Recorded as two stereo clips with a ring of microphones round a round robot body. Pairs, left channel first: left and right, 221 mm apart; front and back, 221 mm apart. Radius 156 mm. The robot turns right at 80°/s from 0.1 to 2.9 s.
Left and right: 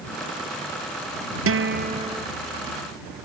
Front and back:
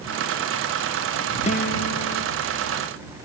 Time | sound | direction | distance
1.5 | a guitar | 70° right | ?